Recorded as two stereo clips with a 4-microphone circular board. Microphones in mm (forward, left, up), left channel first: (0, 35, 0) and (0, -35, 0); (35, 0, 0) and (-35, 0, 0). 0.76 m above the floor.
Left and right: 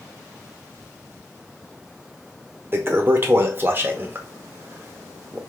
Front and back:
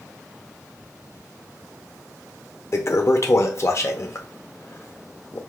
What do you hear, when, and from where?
2.7 s a toilet flushing: 40° right, 0.6 m